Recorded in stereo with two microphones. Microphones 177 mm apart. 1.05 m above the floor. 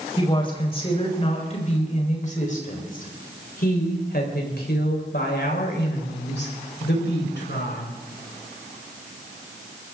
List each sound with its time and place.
0.2 s a woman speaking: 30° left (ahead or behind), 4.5 m; by 7.9 s 85° left, 5 m